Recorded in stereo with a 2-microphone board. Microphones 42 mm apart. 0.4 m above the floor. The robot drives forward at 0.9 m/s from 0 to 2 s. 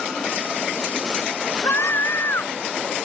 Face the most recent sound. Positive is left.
turn(degrees=70)  # may be behind; listen again after turning